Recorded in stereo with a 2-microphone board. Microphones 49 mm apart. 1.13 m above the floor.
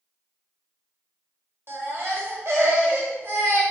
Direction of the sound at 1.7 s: 55° right (ahead or behind).